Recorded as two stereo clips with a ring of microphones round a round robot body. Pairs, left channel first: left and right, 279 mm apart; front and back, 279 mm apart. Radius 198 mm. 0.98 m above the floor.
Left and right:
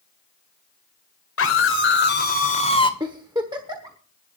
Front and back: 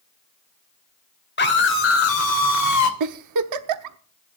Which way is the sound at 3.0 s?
170° right.